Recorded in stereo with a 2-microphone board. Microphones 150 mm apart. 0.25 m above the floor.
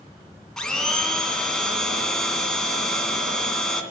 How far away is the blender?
About 2.5 m.